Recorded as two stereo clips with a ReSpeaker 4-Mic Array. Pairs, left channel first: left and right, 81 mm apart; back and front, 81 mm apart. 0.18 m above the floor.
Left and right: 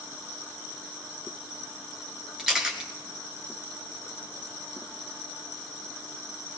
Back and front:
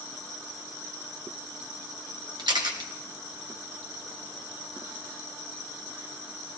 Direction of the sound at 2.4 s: 10° right.